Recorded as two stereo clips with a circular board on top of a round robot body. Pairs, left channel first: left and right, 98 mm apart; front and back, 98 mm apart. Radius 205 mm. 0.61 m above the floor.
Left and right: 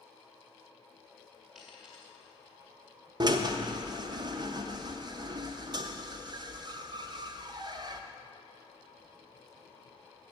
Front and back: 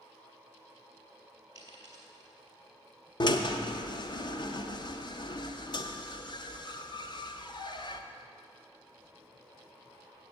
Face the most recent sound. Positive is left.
turn(degrees=-40)